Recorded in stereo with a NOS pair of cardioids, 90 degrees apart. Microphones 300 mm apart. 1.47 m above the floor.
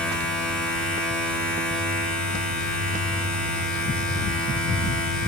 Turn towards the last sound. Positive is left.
turn(degrees=5)